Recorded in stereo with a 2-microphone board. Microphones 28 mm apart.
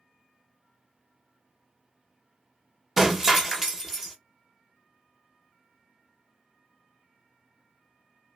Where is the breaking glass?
15° right (ahead or behind), 1.0 m.